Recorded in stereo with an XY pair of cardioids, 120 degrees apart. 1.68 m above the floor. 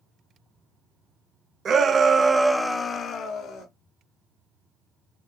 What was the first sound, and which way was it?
A shout, 40° right.